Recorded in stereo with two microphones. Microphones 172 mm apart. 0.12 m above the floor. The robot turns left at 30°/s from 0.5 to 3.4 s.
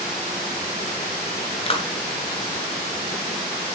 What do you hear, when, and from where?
1.7 s a clap: 35° left (ahead or behind), 1.4 m